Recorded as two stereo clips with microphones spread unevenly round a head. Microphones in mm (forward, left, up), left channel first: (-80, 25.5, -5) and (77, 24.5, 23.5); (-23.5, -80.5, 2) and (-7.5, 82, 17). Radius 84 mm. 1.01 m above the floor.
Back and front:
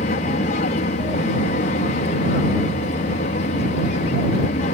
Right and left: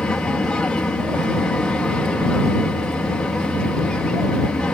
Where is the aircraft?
175° right.